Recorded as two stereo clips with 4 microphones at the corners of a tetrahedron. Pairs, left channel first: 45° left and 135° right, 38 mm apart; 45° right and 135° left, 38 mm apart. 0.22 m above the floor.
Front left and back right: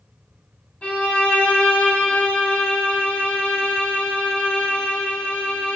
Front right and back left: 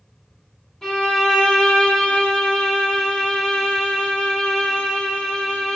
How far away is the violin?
About 0.8 m.